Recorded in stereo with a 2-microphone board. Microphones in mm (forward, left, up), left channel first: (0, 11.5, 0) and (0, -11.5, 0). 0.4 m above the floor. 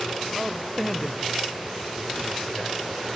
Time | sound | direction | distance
0.3 | a man speaking | 5° left (ahead or behind) | 1.2 m